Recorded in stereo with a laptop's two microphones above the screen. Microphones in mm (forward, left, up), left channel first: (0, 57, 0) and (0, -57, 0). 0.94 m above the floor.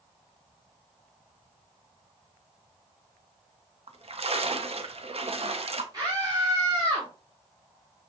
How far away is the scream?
About 2 m.